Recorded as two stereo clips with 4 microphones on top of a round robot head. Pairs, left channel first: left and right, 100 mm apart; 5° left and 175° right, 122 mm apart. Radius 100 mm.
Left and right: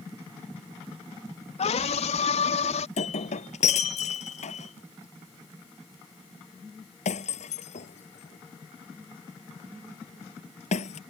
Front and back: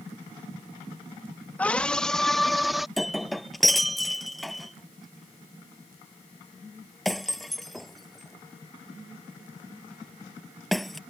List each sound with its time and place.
1.6 s a scream: 80° left; by 2.9 s 95° left
3.0 s breaking glass: 90° left